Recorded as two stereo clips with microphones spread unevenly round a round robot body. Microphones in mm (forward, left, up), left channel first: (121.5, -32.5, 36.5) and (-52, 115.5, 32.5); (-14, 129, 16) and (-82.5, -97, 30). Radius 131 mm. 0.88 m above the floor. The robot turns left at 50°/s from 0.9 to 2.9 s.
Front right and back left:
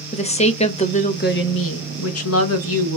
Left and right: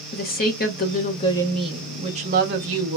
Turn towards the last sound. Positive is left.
turn(degrees=-80)